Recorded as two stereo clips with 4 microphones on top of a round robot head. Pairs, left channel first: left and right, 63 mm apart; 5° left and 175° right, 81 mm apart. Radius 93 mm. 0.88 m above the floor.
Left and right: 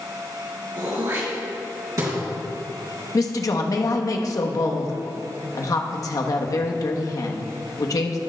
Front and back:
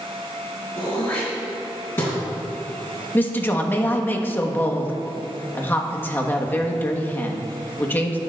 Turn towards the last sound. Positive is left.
turn(degrees=70)